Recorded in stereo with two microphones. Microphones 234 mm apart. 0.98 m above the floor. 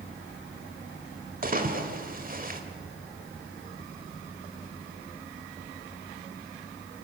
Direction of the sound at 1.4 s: 35° right (ahead or behind).